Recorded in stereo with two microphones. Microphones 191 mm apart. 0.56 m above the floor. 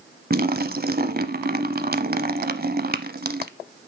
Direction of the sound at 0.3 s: 55° right (ahead or behind).